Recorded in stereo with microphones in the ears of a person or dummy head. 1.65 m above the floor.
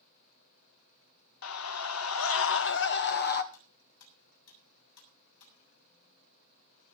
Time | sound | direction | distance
1.4 | a scream | 75° left (ahead or behind) | 1.1 m
3.5 | cutlery clinking | 70° left (ahead or behind) | 7.5 m